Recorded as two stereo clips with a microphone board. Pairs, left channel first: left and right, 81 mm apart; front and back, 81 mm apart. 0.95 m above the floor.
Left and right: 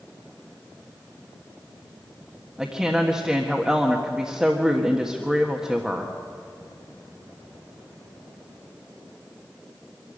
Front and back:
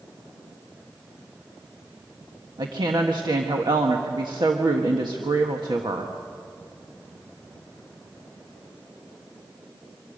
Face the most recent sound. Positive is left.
turn(degrees=-170)